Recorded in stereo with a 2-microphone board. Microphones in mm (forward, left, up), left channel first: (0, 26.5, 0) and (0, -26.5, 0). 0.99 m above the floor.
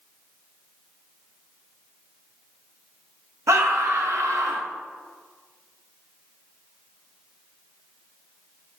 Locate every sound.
3.5 s a scream: 70° right (ahead or behind), 0.7 m